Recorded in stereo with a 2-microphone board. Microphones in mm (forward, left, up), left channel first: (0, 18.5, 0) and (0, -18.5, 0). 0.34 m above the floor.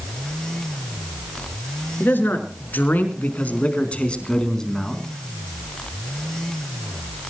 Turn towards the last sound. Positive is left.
turn(degrees=10)  # may be behind; listen again after turning